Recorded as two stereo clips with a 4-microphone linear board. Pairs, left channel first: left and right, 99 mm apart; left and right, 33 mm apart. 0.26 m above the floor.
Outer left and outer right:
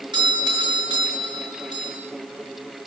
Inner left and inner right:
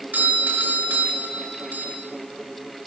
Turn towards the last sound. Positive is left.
turn(degrees=-55)  # may be behind; listen again after turning